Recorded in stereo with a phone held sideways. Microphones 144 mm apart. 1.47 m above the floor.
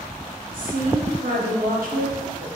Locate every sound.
0.5 s a woman speaking: 70° right (ahead or behind), 1.0 m